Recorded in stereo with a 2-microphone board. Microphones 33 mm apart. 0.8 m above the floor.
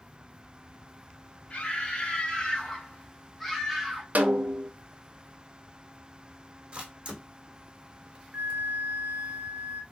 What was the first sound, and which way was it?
A scream, 25° left (ahead or behind).